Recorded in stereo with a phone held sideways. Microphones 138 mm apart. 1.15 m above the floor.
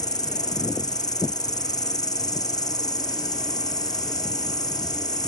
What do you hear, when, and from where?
0.0 s an insect: 25° left (ahead or behind)